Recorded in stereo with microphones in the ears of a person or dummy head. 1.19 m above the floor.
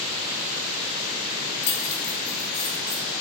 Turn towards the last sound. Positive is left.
turn(degrees=15)  # may be behind; listen again after turning